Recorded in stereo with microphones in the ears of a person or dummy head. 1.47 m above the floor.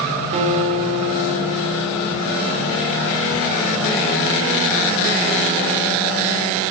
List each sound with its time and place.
0.3 s a guitar: 40° right (ahead or behind), 1.9 m